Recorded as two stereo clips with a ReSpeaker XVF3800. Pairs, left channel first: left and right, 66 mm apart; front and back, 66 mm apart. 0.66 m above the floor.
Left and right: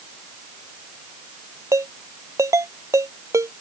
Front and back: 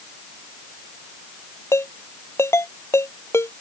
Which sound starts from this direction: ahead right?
A ringtone, at 1.7 s.